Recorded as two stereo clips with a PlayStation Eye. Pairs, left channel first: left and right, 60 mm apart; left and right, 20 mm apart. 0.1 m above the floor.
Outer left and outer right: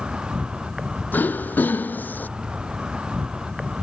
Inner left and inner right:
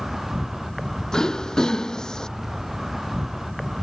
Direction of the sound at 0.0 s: 15° right (ahead or behind).